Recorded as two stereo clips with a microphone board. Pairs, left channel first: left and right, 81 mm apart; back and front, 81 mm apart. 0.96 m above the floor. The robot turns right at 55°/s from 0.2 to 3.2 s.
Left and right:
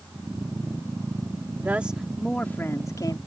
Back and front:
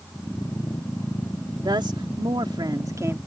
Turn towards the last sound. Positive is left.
turn(degrees=60)